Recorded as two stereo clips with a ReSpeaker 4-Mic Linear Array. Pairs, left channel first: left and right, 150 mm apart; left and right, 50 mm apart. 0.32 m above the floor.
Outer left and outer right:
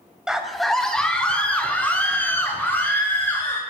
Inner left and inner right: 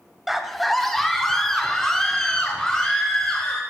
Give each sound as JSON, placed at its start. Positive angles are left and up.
{"t": 0.3, "sound": "a scream", "side_deg": -5, "distance_m": 1.4}